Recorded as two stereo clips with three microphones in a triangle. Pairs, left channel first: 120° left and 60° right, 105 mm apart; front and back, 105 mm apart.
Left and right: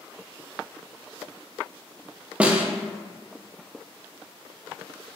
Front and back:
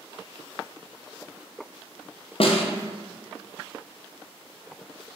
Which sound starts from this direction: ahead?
A snare drum, at 2.4 s.